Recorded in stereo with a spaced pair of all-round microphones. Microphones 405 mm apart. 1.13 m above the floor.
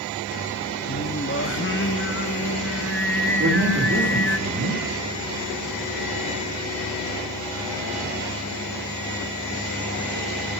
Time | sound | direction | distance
0.9 | singing | 30° left (ahead or behind) | 0.7 m
3.4 | a man speaking | 30° right (ahead or behind) | 4 m